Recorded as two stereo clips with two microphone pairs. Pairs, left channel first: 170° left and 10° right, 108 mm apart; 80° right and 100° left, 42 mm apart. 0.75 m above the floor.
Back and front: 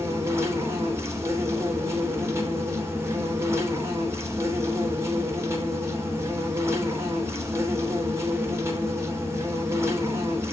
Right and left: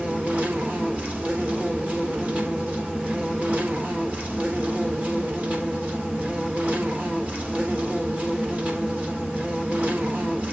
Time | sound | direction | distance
0.0 | an insect | 55° left | 3 m